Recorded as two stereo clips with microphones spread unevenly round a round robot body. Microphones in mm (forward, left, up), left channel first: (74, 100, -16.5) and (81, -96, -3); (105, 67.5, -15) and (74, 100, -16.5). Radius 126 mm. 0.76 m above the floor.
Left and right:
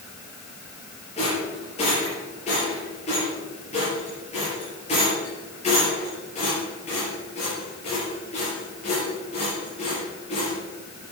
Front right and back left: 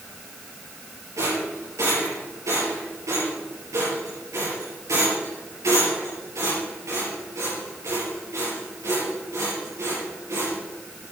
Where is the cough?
I don't hear a cough.